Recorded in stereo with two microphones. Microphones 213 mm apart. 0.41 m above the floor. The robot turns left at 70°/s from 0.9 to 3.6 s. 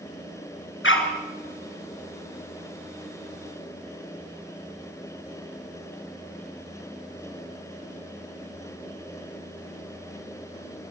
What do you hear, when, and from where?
0.8 s a dog barking: 75° left (ahead or behind), 3 m; by 1.1 s 85° left, 3 m